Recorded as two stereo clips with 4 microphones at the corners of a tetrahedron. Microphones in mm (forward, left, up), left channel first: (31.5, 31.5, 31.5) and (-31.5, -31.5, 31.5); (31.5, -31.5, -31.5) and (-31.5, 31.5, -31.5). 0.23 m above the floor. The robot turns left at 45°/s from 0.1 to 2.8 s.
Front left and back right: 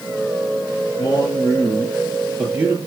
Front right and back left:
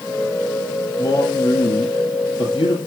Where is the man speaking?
10° left, 6.5 m; by 2.8 s 70° right, 6.5 m.